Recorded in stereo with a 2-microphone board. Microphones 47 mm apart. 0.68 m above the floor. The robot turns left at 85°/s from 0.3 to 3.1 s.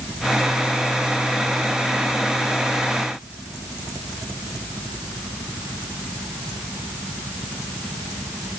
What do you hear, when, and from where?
Only background noise.